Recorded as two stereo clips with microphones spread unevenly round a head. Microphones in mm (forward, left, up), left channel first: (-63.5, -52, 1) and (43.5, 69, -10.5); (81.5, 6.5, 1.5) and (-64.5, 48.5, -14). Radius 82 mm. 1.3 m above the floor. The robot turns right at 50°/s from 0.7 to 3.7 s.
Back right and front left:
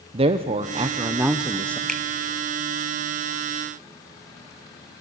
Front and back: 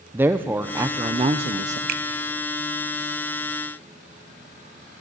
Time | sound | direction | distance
0.1 | a woman speaking | 95° left | 0.7 m
1.9 | a finger snap | 140° left | 1.0 m